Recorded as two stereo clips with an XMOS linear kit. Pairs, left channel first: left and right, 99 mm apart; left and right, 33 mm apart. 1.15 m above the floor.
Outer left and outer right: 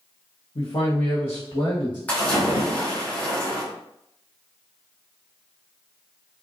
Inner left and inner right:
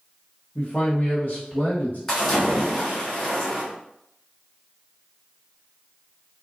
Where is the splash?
15° left (ahead or behind), 1.5 m.